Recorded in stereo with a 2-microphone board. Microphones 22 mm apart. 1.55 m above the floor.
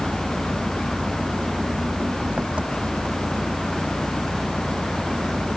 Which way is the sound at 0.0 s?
80° right.